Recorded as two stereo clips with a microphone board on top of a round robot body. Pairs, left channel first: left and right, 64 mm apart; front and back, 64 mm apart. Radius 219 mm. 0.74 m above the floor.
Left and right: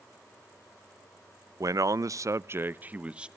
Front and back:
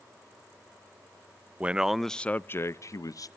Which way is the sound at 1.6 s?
115° right.